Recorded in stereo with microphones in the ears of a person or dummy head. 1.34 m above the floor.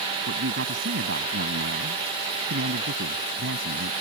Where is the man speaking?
75° right (ahead or behind).